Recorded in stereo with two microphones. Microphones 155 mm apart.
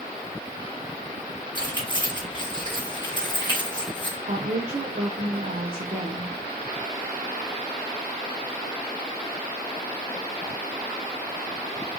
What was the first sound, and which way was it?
Keys jangling, 30° left (ahead or behind).